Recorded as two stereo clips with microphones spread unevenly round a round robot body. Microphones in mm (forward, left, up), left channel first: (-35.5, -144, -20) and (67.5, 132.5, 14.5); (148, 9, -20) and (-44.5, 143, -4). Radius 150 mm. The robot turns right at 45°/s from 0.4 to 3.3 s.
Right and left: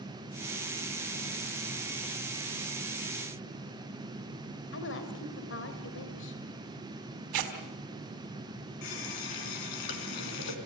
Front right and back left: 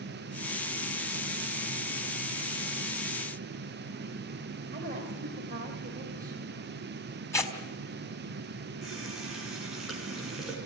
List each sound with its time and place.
4.7 s a woman speaking: 150° right, 2.5 m
7.3 s tearing paper: 40° left, 3.5 m
8.8 s a running tap: 125° right, 3 m